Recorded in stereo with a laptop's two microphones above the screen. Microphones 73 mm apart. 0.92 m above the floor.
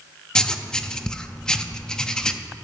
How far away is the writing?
About 0.5 m.